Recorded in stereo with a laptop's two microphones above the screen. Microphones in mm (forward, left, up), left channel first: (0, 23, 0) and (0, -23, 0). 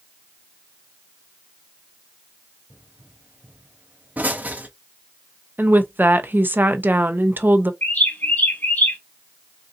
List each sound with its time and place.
2.7 s a pop: 35° right (ahead or behind), 0.9 m
5.6 s a woman speaking: 45° right (ahead or behind), 0.5 m
7.8 s a bird: 45° left (ahead or behind), 1.1 m